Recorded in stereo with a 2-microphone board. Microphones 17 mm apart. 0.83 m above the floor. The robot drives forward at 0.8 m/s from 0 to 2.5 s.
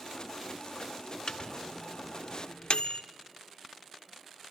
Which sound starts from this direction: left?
A microwave, at 1.3 s.